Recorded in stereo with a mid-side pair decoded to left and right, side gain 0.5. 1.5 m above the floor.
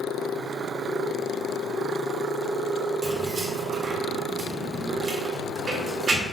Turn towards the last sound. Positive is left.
turn(degrees=-40)